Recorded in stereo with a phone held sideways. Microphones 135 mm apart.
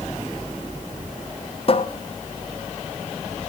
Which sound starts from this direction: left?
A cupboard door, at 1.7 s.